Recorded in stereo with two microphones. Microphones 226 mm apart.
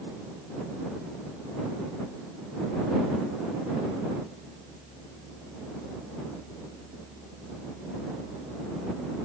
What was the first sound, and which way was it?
Only background noise.